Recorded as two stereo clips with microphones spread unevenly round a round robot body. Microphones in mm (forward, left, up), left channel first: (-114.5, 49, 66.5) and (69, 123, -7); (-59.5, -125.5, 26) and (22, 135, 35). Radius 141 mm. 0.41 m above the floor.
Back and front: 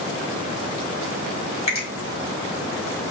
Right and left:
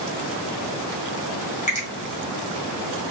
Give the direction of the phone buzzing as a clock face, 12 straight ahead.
I don't hear a phone buzzing.